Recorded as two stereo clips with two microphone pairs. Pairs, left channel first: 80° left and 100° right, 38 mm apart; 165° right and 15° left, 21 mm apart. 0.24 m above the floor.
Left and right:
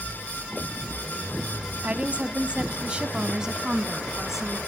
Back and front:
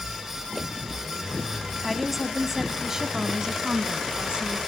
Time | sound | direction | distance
1.8 | a woman speaking | 75° right | 1.3 m